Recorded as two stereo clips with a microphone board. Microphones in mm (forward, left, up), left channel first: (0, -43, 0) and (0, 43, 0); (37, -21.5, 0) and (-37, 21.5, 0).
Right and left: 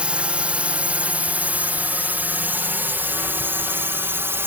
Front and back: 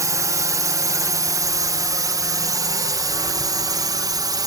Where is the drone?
160° left; by 4.5 s 145° left.